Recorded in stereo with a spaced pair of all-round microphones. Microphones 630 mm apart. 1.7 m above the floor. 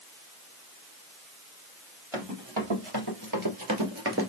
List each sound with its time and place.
2.1 s running footsteps: 45° right (ahead or behind), 3 m; by 4.3 s 20° right (ahead or behind), 1.9 m